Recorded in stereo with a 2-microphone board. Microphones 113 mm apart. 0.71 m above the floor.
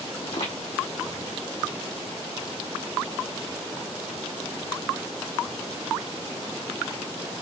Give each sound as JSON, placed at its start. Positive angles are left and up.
{"t": 0.2, "sound": "footsteps", "side_deg": 75, "distance_m": 2.5}